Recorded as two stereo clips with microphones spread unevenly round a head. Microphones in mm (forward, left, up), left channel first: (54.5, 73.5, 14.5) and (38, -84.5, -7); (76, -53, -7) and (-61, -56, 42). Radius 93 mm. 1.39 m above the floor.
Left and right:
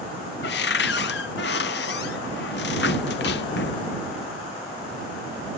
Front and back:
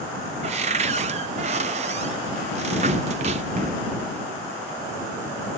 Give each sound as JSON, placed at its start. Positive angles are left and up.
{"t": 0.4, "sound": "a cupboard door", "azimuth_deg": 120}